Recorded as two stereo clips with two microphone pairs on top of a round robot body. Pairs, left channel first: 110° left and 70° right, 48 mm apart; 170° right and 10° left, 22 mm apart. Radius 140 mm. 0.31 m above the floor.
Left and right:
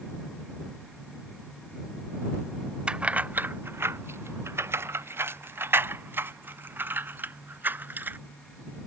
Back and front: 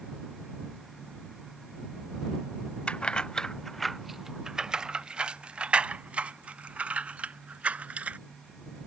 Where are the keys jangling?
135° right; by 8.2 s 15° right.